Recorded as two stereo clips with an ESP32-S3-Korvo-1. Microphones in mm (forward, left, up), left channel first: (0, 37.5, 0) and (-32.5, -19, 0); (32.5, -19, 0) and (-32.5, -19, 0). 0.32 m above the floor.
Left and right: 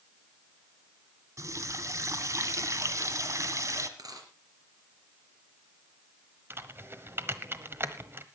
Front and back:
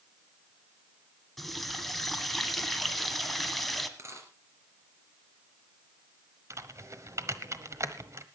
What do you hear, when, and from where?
1.4 s a running tap: 90° right, 1.5 m
4.0 s a dropped coin: 135° right, 3 m
6.5 s typing on a keyboard: 160° right, 1.2 m